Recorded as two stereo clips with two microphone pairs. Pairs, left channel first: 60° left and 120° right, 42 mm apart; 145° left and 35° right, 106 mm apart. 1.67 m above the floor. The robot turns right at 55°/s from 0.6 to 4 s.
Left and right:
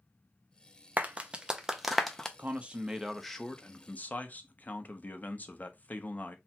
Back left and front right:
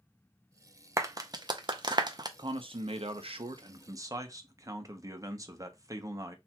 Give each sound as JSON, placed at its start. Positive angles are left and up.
{"t": 1.0, "sound": "a clap", "azimuth_deg": -80, "distance_m": 0.6}
{"t": 2.4, "sound": "a man speaking", "azimuth_deg": -75, "distance_m": 0.7}